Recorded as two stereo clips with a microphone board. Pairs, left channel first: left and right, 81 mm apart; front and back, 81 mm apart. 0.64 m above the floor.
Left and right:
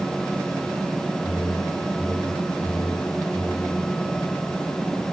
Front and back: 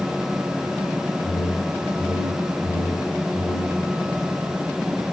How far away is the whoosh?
About 0.7 m.